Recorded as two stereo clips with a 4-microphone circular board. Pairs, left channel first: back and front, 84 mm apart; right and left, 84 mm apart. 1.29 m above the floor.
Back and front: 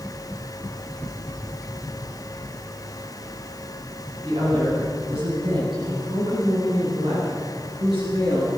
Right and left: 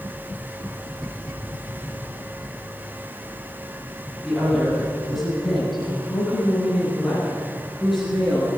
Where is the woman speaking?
5° left, 10 m; by 8.5 s straight ahead, 16.5 m.